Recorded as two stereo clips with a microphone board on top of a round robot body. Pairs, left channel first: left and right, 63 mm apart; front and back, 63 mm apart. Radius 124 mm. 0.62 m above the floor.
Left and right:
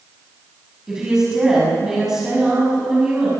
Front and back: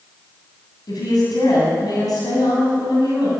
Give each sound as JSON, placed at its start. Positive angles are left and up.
{"t": 0.9, "sound": "a woman speaking", "azimuth_deg": -10, "distance_m": 7.0}